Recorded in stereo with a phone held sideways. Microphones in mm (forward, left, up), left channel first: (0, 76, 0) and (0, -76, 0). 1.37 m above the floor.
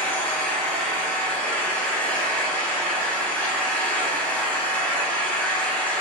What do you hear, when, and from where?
0.0 s an engine running: 10° left (ahead or behind), 0.9 m